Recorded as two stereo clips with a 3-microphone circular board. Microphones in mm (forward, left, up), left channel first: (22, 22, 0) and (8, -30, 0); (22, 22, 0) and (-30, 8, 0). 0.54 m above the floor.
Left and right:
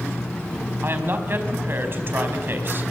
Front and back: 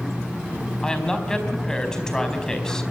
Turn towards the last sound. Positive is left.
turn(degrees=-65)